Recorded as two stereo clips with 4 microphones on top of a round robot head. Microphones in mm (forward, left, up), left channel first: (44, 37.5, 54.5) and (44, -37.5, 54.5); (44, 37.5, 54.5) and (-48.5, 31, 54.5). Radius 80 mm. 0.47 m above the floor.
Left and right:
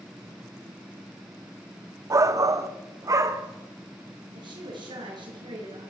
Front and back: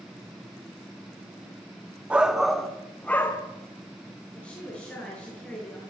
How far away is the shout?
About 1.2 m.